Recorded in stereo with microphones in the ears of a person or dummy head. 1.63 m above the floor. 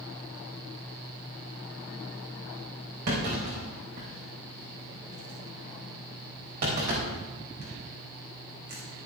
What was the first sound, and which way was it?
A clunk, 55° right (ahead or behind).